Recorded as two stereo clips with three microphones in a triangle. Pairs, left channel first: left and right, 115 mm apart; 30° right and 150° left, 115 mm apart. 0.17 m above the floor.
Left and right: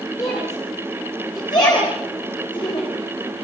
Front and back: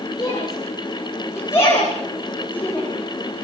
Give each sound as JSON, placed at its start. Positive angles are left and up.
{"t": 0.2, "sound": "a shout", "azimuth_deg": 30, "distance_m": 10.0}